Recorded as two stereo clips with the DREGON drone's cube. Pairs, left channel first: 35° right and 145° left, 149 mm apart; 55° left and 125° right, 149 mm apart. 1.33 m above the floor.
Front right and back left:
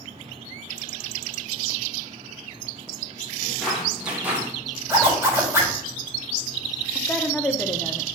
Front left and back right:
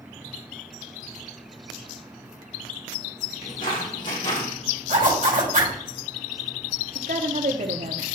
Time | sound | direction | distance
3.4 | footsteps | 50° left | 3.5 m
4.9 | a zipper | 145° right | 3.5 m
7.0 | a woman speaking | 110° right | 0.9 m